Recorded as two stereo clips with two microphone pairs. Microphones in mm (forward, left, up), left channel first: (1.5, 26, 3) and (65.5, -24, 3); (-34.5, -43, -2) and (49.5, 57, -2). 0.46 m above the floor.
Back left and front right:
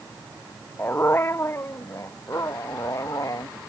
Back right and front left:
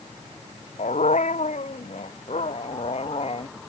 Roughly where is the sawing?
No sawing in this recording.